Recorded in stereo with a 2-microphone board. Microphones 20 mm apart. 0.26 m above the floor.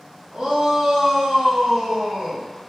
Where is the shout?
35° right (ahead or behind), 1.6 m; by 2.4 s 45° right (ahead or behind), 2 m.